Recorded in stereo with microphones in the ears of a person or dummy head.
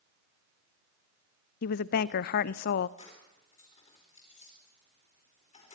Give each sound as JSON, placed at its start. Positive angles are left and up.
{"t": 1.6, "sound": "a woman speaking", "side_deg": 55, "distance_m": 0.7}
{"t": 3.0, "sound": "keys jangling", "side_deg": 35, "distance_m": 4.5}